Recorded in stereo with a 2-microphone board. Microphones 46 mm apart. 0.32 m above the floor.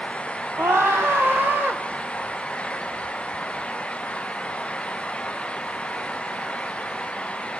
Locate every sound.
0.6 s a scream: 65° right (ahead or behind), 2 m; by 1.8 s 40° right (ahead or behind), 1.4 m